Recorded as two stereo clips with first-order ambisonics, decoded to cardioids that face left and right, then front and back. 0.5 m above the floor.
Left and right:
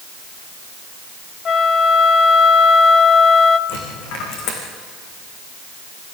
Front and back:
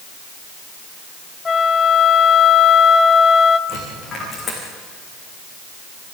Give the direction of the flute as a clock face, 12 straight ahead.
10 o'clock.